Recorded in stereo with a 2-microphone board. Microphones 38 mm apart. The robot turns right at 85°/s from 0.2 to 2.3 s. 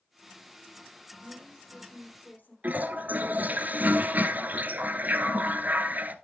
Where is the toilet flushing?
50° right (ahead or behind), 0.7 m.